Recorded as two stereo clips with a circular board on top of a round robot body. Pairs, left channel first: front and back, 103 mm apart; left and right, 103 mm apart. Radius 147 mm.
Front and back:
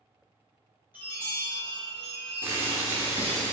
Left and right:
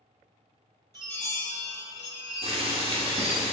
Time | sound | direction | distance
0.9 | a chime | 115° right | 1.6 m
2.4 | boiling | 110° right | 0.8 m